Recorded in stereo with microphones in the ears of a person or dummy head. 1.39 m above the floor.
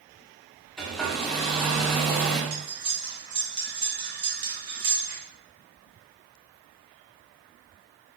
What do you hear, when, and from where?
0.8 s a hair dryer: centre (ahead or behind), 0.5 m
2.5 s cutlery clinking: 25° right (ahead or behind), 0.9 m